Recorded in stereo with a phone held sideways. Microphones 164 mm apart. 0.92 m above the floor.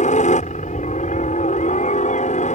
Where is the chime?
No chime in this recording.